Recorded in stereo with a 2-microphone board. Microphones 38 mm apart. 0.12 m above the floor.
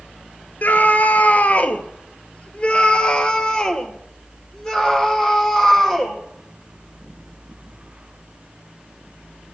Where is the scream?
50° left (ahead or behind), 1.7 m; by 6.2 s 10° left (ahead or behind), 4 m.